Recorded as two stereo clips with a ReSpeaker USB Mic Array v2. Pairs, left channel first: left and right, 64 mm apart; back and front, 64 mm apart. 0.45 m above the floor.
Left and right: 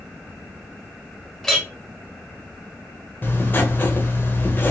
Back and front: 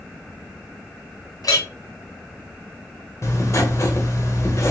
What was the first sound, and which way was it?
A clink, 170° left.